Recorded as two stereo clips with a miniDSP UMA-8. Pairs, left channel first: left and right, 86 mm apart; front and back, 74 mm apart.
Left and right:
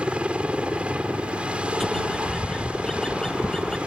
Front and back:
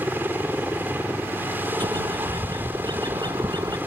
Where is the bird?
175° left.